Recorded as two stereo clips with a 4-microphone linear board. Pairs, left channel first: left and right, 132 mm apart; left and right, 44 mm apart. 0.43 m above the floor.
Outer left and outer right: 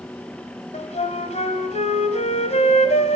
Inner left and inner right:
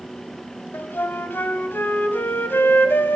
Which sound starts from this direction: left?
A flute, at 0.7 s.